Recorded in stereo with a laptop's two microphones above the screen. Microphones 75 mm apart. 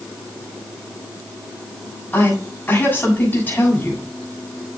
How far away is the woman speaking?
About 7 m.